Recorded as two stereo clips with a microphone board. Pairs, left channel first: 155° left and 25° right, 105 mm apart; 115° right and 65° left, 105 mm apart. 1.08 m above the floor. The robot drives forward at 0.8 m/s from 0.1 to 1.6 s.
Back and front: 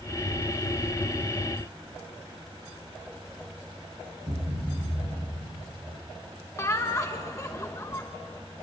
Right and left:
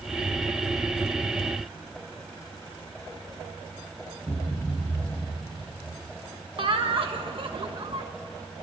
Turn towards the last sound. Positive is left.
turn(degrees=100)